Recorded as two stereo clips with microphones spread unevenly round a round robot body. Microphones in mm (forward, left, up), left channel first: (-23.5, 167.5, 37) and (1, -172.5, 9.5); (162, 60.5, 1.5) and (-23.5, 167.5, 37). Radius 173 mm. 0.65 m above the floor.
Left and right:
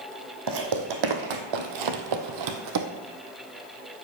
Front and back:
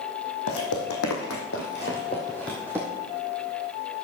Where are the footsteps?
50° right, 2 m; by 2.9 s 135° right, 1.8 m.